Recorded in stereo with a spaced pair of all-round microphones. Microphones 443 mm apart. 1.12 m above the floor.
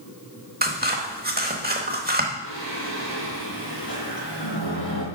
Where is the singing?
60° left (ahead or behind), 3 m.